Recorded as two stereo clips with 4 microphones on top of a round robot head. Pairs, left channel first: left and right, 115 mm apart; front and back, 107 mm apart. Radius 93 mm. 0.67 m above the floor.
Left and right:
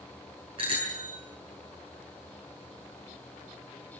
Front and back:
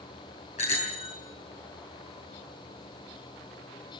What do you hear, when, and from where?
0.6 s a bicycle bell: 35° right, 6.5 m